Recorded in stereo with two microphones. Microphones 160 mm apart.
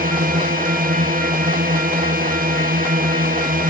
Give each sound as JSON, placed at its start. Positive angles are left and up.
{"t": 0.0, "sound": "a drone", "side_deg": -60}